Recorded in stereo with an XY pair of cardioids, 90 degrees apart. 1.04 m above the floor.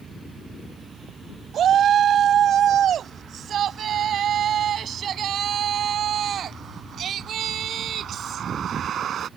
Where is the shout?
65° right.